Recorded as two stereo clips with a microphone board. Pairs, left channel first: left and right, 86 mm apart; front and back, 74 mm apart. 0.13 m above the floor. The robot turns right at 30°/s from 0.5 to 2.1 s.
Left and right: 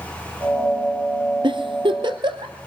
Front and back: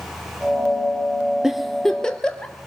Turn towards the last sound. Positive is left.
turn(degrees=-80)